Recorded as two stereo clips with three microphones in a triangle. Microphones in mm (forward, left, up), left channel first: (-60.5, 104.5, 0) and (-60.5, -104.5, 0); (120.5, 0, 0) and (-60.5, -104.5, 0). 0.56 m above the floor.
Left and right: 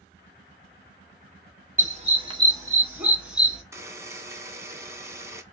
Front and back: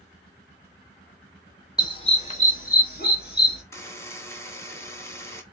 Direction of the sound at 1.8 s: 40° right.